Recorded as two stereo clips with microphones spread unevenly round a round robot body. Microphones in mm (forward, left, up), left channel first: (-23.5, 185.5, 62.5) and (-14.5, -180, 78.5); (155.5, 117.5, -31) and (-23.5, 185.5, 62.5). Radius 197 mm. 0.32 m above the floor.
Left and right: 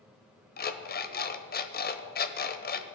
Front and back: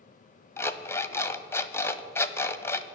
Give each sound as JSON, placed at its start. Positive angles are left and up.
{"t": 0.6, "sound": "an alarm clock", "azimuth_deg": 35, "distance_m": 1.2}